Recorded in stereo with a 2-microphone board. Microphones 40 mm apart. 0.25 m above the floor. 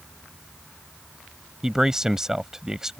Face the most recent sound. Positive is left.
turn(degrees=-15)  # may be behind; listen again after turning